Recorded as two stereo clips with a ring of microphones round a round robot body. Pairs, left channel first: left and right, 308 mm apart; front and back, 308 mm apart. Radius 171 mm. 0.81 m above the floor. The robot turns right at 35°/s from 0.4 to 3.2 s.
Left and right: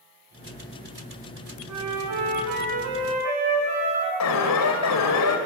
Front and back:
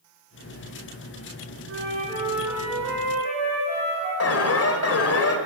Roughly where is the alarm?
Ahead left.